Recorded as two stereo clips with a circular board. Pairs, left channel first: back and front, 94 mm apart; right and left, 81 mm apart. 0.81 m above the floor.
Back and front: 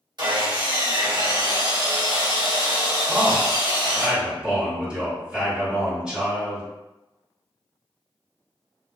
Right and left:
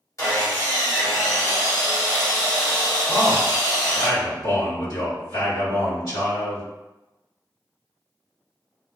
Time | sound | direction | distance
0.2 | sawing | 40° right | 1.1 m
3.1 | a man speaking | 80° right | 1.8 m